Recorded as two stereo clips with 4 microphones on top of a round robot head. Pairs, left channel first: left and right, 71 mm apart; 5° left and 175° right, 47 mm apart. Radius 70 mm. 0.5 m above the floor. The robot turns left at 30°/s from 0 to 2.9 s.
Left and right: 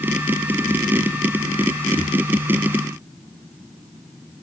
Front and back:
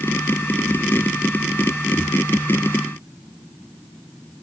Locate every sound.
Only background noise.